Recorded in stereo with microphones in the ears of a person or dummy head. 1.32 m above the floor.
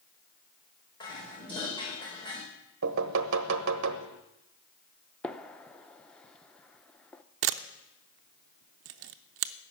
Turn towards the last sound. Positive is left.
turn(degrees=-65)  # may be behind; listen again after turning